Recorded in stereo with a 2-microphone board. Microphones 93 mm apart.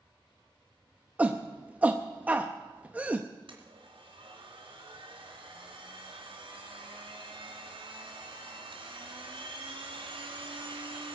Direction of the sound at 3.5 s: 70° right (ahead or behind).